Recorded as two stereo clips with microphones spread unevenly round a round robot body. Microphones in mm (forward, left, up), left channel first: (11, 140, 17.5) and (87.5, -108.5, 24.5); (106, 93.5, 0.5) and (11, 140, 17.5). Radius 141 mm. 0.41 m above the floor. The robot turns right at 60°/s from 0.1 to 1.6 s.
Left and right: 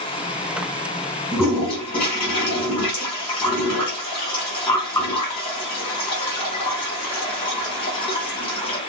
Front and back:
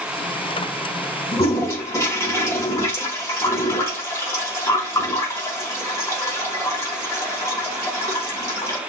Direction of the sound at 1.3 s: 20° left.